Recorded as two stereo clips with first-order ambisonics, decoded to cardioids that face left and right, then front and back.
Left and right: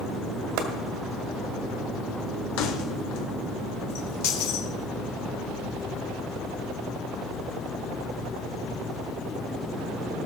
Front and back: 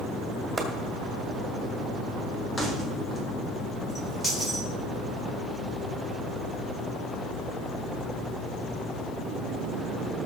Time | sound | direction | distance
0.6 | chopping | 100° right | 1.7 m
2.6 | keys jangling | 80° left | 1.8 m